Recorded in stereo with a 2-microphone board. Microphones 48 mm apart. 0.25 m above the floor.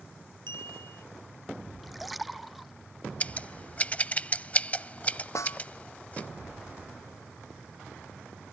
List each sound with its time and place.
0.5 s a clink: 65° left (ahead or behind)
1.8 s a splash: centre (ahead or behind)
3.2 s scissors: 30° left (ahead or behind)
5.3 s a snare drum: 85° left